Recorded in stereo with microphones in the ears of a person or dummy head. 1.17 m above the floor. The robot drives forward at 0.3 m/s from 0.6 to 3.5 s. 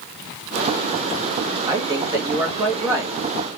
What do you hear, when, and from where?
1.7 s a woman speaking: 15° right (ahead or behind), 1.3 m